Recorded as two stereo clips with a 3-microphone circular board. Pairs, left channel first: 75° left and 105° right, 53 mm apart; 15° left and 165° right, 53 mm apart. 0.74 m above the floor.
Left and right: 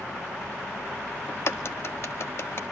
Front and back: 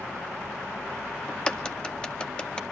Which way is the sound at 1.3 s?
85° left.